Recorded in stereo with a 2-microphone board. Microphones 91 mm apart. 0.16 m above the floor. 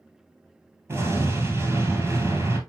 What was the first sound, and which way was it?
An explosion, 30° right (ahead or behind).